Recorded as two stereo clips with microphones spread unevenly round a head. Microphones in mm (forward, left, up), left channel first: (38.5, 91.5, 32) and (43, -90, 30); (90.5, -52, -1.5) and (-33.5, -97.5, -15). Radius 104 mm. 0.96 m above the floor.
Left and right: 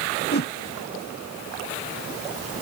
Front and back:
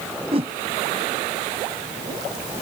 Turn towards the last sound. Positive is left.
turn(degrees=135)